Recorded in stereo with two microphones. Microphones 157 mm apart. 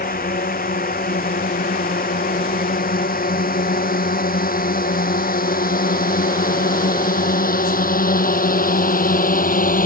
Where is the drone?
75° left (ahead or behind); by 9.9 s 70° left (ahead or behind).